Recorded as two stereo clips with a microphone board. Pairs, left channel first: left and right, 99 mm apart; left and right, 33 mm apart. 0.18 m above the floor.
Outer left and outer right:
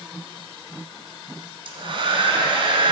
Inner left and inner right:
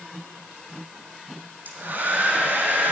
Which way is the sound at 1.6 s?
60° right (ahead or behind).